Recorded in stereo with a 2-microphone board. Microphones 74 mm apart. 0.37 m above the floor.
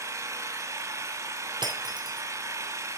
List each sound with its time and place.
0.0 s an engine running: 40° right (ahead or behind), 0.9 m
1.6 s breaking glass: 75° right (ahead or behind), 1.5 m